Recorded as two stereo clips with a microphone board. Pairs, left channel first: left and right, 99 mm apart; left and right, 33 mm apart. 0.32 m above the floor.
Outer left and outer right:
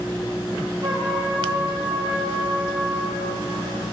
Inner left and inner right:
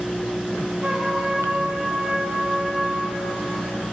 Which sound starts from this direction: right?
A trumpet, at 0.8 s.